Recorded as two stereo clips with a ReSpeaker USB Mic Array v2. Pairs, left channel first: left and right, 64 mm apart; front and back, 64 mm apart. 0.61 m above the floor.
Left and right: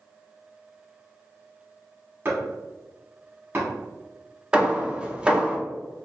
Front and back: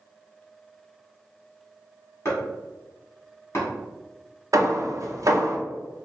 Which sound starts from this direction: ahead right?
Chopping, at 2.2 s.